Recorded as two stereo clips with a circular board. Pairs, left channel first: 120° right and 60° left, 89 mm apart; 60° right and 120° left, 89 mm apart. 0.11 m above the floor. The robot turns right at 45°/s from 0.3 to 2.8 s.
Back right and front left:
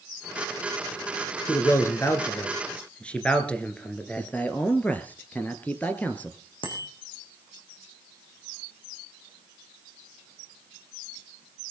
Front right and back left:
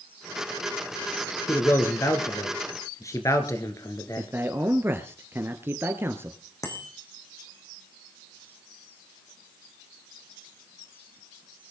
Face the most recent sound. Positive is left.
turn(degrees=-110)